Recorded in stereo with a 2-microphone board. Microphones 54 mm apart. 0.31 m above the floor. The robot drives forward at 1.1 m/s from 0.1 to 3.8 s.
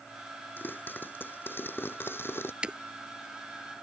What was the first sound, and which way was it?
A pop, 40° left (ahead or behind).